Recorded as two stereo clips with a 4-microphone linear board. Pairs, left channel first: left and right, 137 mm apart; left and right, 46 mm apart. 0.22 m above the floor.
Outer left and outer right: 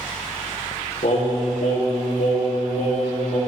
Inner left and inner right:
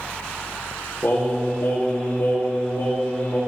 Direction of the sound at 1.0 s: 65° left (ahead or behind).